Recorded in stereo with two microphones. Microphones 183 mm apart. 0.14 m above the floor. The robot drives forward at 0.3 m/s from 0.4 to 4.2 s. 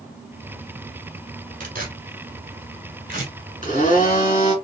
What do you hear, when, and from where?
1.6 s tearing paper: 50° right (ahead or behind), 1.3 m; by 3.3 s 45° right (ahead or behind), 1.4 m
3.6 s a blender: 40° left (ahead or behind), 2 m